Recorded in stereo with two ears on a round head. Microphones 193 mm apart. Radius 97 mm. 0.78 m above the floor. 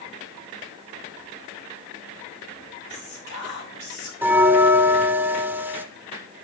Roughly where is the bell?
Centre.